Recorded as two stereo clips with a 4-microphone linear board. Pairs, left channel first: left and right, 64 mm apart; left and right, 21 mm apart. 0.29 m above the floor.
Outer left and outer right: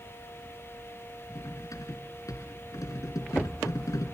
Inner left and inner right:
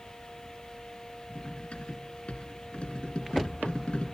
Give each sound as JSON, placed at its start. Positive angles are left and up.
{"t": 1.4, "sound": "cutlery clinking", "side_deg": 70, "distance_m": 1.9}